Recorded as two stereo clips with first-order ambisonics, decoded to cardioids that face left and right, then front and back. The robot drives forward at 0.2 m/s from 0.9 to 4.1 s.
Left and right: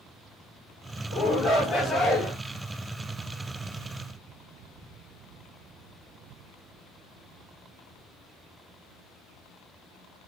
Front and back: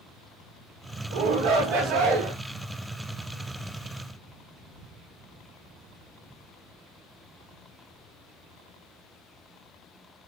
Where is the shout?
175° right, 4 m.